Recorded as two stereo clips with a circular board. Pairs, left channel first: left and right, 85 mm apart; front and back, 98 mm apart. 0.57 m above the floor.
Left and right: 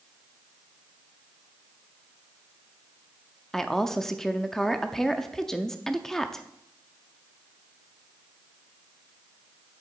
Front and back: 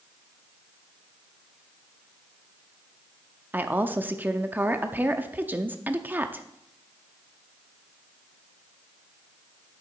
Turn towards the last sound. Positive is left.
turn(degrees=165)